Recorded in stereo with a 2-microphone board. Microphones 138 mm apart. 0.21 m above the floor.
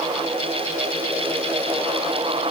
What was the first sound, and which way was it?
Only background noise.